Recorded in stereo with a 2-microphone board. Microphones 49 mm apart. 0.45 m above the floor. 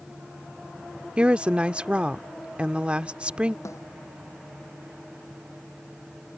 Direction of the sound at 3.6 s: 80° left.